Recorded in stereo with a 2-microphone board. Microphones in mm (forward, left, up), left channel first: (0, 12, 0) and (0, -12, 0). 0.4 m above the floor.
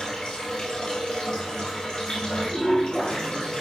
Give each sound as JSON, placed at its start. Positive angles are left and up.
{"t": 0.0, "sound": "running water", "side_deg": 35, "distance_m": 3.0}